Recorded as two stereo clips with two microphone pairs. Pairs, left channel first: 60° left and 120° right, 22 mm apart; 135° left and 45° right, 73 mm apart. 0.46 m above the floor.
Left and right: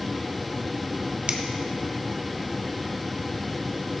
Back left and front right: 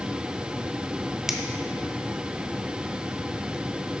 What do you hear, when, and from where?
1.3 s a finger snap: 125° right, 0.7 m